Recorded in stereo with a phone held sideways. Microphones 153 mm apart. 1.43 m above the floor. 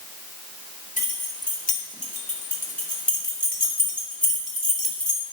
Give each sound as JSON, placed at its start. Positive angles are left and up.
{"t": 1.0, "sound": "keys jangling", "side_deg": 70, "distance_m": 3.5}